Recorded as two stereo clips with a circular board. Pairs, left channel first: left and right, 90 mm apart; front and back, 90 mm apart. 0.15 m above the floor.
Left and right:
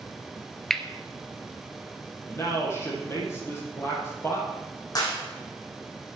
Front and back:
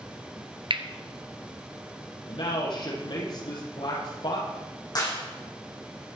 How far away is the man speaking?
About 6.5 m.